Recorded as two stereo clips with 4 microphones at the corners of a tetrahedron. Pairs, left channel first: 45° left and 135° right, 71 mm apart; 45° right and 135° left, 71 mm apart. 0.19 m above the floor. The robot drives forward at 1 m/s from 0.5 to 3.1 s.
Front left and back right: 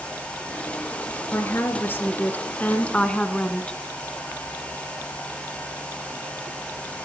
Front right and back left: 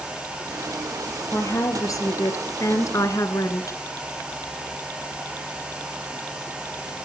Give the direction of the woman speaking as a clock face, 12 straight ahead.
12 o'clock.